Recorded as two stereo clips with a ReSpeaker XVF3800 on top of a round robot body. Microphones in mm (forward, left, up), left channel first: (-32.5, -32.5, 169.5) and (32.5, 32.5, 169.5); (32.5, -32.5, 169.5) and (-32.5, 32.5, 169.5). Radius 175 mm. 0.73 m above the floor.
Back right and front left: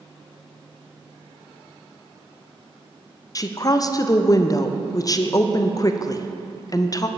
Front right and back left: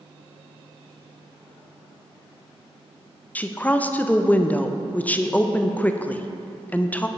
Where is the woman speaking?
110° right, 0.7 m.